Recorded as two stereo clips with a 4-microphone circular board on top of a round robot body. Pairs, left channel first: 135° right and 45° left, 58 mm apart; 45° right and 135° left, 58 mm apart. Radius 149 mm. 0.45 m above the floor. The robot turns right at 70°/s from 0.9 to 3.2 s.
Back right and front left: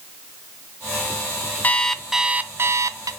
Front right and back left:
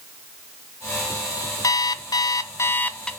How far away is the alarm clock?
About 0.8 m.